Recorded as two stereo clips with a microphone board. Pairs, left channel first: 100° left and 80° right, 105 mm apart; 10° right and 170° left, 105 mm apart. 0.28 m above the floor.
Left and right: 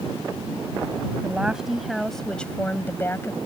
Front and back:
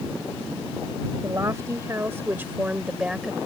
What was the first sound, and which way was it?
A woman speaking, 150° right.